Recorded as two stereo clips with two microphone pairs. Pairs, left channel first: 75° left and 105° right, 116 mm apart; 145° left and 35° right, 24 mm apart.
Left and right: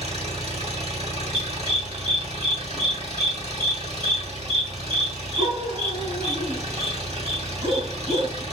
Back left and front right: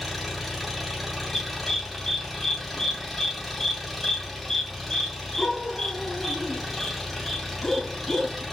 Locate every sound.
0.0 s an engine running: 115° right, 1.5 m
1.3 s a dog barking: 140° right, 1.2 m